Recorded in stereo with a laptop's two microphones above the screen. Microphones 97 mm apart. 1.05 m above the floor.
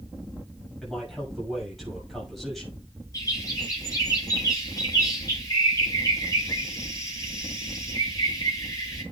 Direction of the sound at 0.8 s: Centre (ahead or behind).